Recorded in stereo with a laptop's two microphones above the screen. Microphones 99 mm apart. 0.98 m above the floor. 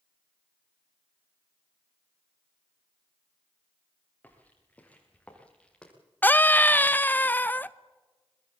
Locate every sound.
4.2 s footsteps: 15° left (ahead or behind), 8 m; by 5.9 s 10° left (ahead or behind), 7.5 m
6.2 s a scream: 20° left (ahead or behind), 0.7 m